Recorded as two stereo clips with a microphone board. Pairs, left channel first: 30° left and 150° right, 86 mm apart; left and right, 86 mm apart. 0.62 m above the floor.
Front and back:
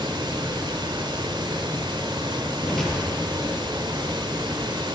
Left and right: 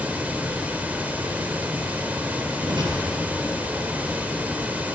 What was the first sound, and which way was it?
Running water, 160° right.